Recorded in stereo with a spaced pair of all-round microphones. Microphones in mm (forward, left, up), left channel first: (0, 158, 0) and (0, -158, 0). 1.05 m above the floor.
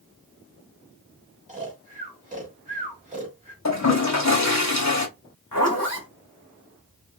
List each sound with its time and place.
1.5 s snoring: 20° right (ahead or behind), 1.5 m
3.6 s a toilet flushing: 55° left (ahead or behind), 0.8 m
5.5 s a zipper: 75° left (ahead or behind), 1.5 m